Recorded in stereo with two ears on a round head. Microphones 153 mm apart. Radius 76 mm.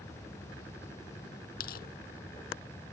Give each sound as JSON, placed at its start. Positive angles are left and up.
{"t": 1.6, "sound": "tearing paper", "side_deg": 60}